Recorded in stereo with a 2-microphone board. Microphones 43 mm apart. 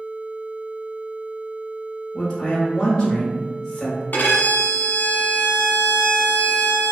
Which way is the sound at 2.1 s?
20° left (ahead or behind).